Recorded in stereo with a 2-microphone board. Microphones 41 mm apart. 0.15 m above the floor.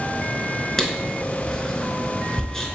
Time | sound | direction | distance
0.8 | writing | 15° left (ahead or behind) | 0.8 m